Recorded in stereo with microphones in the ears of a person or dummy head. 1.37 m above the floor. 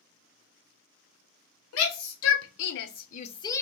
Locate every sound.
1.7 s a shout: 80° left, 1.1 m; by 3.6 s 10° left (ahead or behind), 0.5 m